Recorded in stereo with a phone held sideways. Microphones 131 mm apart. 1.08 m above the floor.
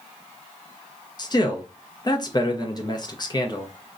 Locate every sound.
1.2 s a man speaking: 30° left (ahead or behind), 0.5 m